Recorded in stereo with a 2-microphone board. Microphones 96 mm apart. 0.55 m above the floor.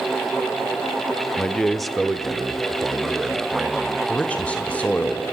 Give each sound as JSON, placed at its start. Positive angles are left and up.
{"t": 1.4, "sound": "a man speaking", "side_deg": 10, "distance_m": 1.1}
{"t": 4.1, "sound": "a man speaking", "side_deg": 15, "distance_m": 1.9}